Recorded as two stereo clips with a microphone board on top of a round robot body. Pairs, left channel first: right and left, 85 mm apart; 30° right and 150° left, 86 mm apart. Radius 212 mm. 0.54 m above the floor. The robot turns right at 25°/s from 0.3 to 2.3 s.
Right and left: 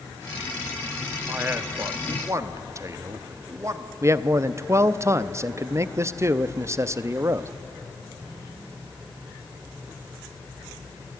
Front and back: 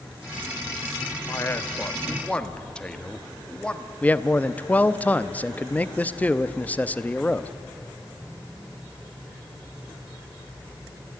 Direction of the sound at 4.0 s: 40° left.